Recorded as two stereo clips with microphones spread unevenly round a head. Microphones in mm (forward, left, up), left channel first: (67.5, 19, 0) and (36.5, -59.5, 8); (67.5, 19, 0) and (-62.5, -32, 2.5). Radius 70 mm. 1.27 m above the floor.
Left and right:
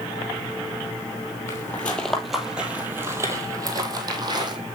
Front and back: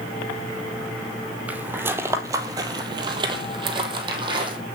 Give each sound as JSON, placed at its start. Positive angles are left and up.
{"t": 1.5, "sound": "footsteps", "azimuth_deg": 130, "distance_m": 1.5}